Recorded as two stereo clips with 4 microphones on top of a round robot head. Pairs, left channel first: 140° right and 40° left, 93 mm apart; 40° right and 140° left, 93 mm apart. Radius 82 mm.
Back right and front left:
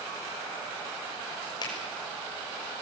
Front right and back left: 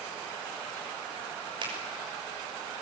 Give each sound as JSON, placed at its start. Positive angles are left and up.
{"t": 1.6, "sound": "a finger snap", "azimuth_deg": 175, "distance_m": 6.0}